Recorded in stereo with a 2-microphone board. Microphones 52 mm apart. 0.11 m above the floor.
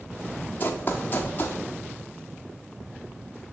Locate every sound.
0.6 s running footsteps: 35° left (ahead or behind), 1.1 m